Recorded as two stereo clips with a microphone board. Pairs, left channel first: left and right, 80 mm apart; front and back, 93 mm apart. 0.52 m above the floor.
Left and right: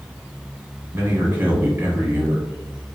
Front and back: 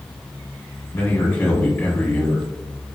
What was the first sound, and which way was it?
A man speaking, 60° right.